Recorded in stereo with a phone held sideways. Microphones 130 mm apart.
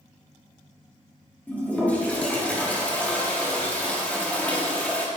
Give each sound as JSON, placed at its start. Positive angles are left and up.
{"t": 1.5, "sound": "a toilet flushing", "side_deg": 10, "distance_m": 1.4}